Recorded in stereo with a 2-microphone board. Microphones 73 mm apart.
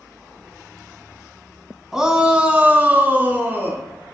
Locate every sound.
1.9 s a shout: 5° right (ahead or behind), 1.0 m; by 3.8 s 30° right (ahead or behind), 2 m